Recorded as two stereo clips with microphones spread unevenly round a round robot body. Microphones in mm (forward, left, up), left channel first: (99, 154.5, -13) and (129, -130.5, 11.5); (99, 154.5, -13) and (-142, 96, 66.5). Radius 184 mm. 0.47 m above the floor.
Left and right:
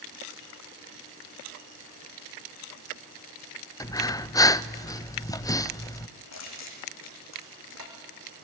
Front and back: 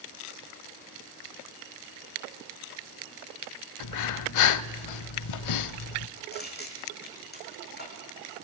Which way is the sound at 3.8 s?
15° left.